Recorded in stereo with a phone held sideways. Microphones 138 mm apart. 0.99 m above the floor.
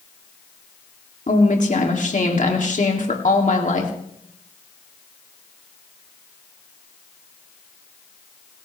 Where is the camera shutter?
No camera shutter in this recording.